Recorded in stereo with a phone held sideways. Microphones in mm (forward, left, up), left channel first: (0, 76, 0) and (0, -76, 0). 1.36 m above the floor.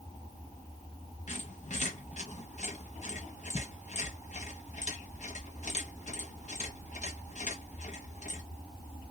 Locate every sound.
1.3 s a squeak: 55° left (ahead or behind), 0.9 m